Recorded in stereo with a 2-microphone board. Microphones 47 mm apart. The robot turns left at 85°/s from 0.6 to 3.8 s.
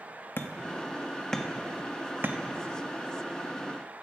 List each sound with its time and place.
0.4 s hammering: 50° left (ahead or behind), 1.1 m; by 2.4 s 50° right (ahead or behind), 1.1 m